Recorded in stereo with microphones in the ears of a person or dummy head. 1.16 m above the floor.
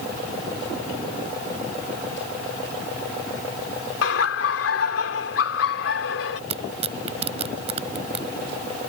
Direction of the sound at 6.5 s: 35° right (ahead or behind).